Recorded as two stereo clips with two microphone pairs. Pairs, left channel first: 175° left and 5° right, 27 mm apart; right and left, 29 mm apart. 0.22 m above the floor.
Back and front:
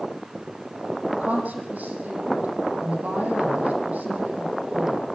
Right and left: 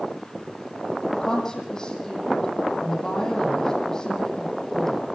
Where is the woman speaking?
20° right, 10 m.